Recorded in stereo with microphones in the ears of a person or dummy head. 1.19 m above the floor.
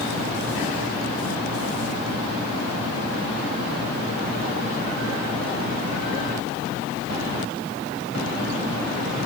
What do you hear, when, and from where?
Only background noise.